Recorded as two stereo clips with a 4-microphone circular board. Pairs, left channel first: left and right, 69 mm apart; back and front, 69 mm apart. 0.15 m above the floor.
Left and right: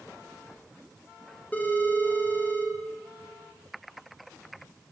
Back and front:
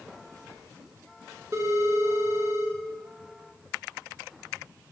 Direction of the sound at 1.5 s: 30° left.